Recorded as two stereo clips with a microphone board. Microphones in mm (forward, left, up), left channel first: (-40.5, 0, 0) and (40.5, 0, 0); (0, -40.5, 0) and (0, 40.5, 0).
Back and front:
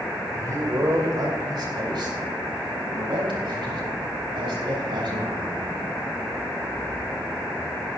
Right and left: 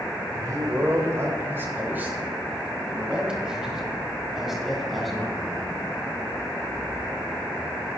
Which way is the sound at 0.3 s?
50° left.